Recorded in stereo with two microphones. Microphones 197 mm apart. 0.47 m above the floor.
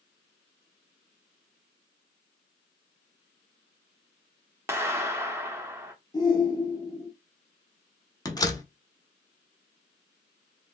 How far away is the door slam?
About 0.6 m.